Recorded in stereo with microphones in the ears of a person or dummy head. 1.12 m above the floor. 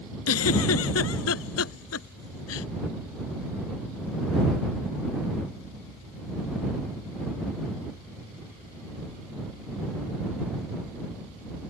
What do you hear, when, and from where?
0.3 s a giggle: 85° left